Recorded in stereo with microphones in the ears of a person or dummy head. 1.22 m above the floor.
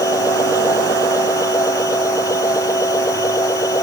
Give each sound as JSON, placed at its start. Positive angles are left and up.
{"t": 0.0, "sound": "a machine running", "side_deg": 15}